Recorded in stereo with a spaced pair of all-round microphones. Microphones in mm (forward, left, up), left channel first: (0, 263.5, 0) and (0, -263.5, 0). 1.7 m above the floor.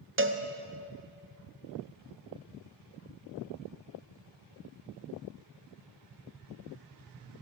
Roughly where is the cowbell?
Right.